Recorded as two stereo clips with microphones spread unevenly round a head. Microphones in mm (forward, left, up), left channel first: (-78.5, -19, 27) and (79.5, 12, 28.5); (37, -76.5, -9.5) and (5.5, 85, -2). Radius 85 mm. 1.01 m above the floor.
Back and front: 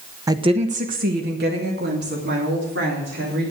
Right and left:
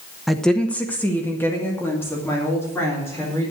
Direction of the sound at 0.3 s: 5° left.